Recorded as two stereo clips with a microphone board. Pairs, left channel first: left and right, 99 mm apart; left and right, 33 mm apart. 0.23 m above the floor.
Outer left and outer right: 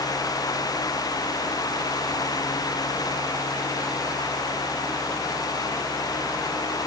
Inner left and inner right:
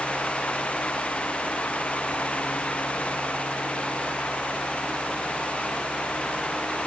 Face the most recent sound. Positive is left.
No sound to turn to.